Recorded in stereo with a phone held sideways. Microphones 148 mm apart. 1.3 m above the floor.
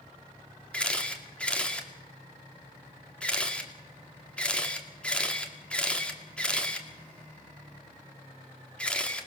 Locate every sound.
0.7 s a camera shutter: 5° left (ahead or behind), 2 m